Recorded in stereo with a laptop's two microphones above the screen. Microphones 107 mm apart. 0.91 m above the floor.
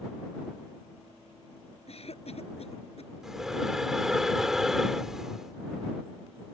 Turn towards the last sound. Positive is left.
turn(degrees=-5)  # may be behind; listen again after turning